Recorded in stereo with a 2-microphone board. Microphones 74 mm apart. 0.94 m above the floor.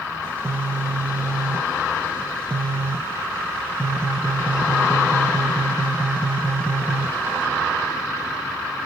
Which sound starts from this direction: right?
A phone buzzing, at 0.2 s.